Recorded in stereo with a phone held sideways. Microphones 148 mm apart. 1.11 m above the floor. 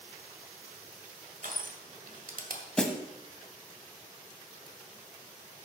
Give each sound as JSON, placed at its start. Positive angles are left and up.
{"t": 1.4, "sound": "crushing", "side_deg": -70, "distance_m": 1.9}
{"t": 2.8, "sound": "a snare drum", "side_deg": 5, "distance_m": 1.2}